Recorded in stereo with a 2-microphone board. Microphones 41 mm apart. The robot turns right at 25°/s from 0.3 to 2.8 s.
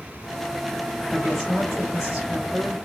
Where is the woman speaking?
Straight behind, 0.8 m; by 2.8 s 140° right, 0.8 m.